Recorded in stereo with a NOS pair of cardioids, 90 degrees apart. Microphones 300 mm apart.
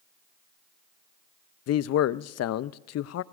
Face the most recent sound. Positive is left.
turn(degrees=55)